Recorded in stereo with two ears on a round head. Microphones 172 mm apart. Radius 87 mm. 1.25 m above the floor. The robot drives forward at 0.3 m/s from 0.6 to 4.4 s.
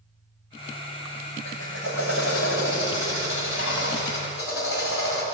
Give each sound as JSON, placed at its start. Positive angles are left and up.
{"t": 1.4, "sound": "a drill", "side_deg": 75, "distance_m": 7.5}